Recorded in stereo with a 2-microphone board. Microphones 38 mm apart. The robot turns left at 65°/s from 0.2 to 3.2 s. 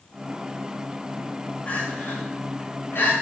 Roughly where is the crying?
Left.